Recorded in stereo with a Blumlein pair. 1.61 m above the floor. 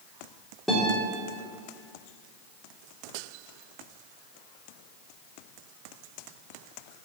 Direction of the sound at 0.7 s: 5° left.